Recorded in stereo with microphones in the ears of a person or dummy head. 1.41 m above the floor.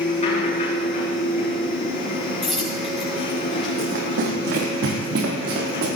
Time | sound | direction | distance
0.0 | a machine running | 40° left (ahead or behind) | 7.5 m
2.4 | a dropped coin | centre (ahead or behind) | 5.5 m
3.8 | running footsteps | 55° right (ahead or behind) | 4 m